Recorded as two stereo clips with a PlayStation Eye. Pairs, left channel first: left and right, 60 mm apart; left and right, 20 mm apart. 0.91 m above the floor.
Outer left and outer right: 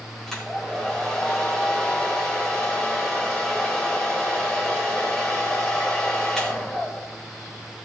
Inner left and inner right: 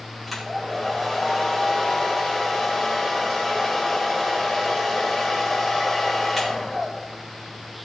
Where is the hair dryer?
5° left (ahead or behind), 4 m.